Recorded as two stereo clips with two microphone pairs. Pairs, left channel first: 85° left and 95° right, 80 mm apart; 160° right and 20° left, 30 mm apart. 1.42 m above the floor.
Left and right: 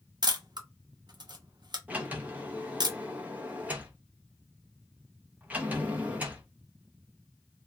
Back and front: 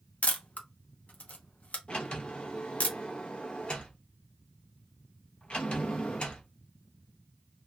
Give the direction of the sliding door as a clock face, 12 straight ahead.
5 o'clock.